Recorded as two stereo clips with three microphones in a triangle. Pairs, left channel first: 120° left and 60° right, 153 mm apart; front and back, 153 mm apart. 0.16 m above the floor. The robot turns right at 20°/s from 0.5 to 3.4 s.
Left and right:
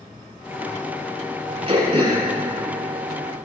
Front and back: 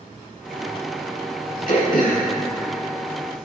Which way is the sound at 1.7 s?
15° right.